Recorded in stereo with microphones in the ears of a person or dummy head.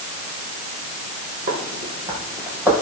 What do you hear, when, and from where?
1.5 s footsteps: 40° right (ahead or behind), 3 m; by 2.7 s 10° right (ahead or behind), 2.5 m